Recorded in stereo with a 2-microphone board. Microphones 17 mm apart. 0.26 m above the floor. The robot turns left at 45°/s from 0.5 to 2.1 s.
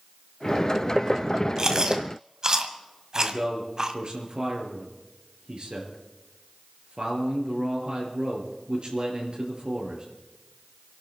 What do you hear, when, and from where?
1.6 s chewing: 45° right (ahead or behind), 1.5 m; by 3.9 s 40° right (ahead or behind), 1.5 m
3.1 s a man speaking: 65° right (ahead or behind), 5 m